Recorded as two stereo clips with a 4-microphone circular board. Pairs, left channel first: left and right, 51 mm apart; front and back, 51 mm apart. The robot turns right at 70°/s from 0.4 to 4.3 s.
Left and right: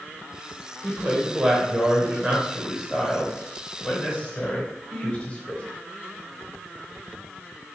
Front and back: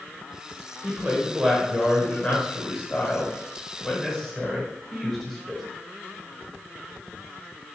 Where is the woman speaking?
155° right, 1.0 m; by 5.6 s 90° left, 1.0 m.